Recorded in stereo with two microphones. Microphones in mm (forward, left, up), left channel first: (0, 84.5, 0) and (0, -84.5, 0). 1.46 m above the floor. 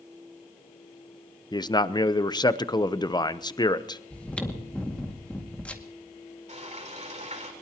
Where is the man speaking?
25° left (ahead or behind), 0.7 m.